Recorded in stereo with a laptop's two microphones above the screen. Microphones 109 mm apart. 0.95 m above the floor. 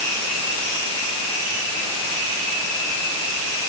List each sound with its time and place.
Only background noise.